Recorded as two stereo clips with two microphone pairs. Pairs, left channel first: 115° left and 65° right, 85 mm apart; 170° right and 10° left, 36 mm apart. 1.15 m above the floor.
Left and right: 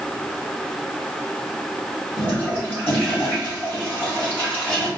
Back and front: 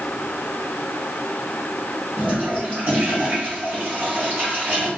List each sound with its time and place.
2.2 s a toilet flushing: 50° left, 2.5 m